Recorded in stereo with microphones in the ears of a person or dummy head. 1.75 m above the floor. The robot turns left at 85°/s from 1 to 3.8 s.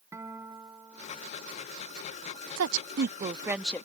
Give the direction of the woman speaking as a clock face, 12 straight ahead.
3 o'clock.